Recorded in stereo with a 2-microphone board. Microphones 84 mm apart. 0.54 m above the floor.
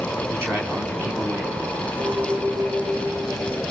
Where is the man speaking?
30° right (ahead or behind), 5 m; by 1.9 s 20° right (ahead or behind), 3.5 m.